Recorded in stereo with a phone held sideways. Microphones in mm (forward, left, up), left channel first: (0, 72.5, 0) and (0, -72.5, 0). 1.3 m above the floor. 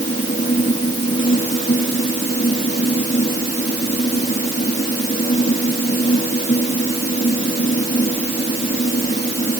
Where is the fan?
60° left (ahead or behind).